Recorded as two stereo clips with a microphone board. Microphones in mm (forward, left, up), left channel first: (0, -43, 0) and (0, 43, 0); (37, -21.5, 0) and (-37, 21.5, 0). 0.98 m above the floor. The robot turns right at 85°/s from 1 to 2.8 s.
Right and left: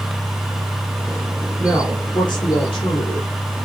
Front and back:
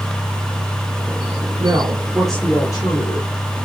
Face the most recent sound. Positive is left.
turn(degrees=-75)